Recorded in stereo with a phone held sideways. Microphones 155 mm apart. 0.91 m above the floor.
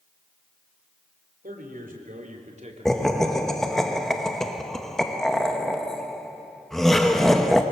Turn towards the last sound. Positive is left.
turn(degrees=0)  # may be behind; listen again after turning